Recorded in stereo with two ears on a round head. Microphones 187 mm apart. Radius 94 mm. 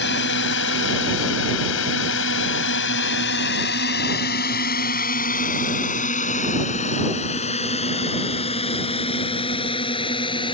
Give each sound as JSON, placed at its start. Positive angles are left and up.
{"t": 0.0, "sound": "a drone", "side_deg": 55}